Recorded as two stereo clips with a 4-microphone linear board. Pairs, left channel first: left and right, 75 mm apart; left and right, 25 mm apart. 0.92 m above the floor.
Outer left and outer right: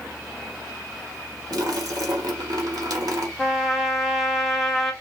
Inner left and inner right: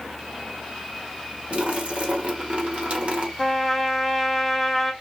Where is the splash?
65° right (ahead or behind), 1.3 m.